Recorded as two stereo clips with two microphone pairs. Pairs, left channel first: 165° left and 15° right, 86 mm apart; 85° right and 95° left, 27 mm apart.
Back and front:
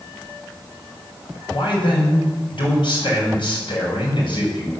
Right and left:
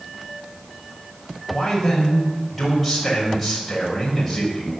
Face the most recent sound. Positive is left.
turn(degrees=-175)